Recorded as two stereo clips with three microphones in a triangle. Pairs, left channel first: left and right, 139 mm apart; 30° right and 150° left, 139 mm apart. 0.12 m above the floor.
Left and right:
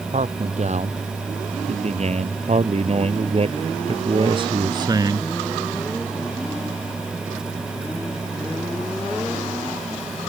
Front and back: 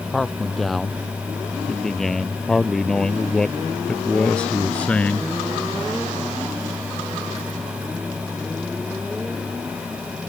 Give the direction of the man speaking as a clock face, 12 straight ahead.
4 o'clock.